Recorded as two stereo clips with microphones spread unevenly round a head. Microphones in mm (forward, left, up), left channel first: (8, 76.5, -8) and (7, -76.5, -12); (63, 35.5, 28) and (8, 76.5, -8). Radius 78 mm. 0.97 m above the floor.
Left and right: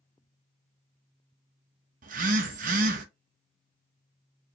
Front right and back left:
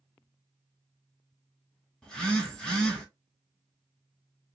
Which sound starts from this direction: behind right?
A phone buzzing, at 2.0 s.